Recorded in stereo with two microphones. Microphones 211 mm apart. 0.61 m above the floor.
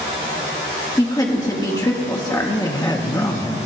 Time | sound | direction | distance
1.0 | a woman speaking | 15° left (ahead or behind) | 1.1 m
2.5 | a man speaking | 20° left (ahead or behind) | 0.6 m